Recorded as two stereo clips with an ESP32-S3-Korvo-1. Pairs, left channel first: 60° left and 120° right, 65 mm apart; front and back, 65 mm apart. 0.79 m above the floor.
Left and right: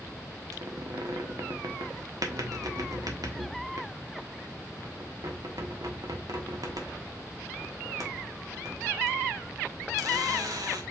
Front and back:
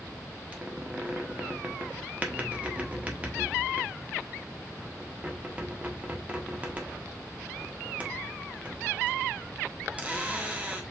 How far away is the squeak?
About 1.2 m.